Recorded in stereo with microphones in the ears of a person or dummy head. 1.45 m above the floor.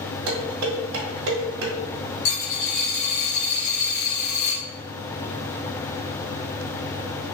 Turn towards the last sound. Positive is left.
turn(degrees=70)  # may be behind; listen again after turning